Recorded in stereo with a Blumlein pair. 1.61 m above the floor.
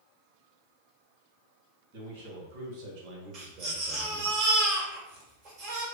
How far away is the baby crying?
About 1.4 m.